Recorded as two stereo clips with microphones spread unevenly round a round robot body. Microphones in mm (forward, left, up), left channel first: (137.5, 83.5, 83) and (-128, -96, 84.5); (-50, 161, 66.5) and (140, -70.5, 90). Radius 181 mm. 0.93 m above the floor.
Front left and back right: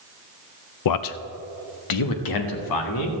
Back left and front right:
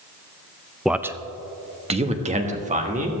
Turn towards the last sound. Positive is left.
turn(degrees=15)